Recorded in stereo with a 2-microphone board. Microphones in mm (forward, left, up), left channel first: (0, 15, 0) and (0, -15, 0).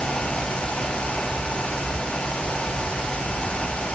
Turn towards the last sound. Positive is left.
No sound to turn to.